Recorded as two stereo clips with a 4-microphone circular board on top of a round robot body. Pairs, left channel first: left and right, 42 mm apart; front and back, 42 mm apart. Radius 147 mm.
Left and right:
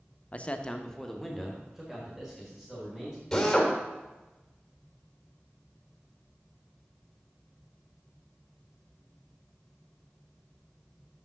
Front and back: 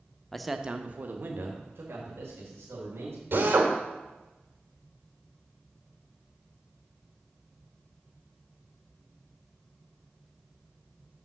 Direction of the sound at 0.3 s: 75° left.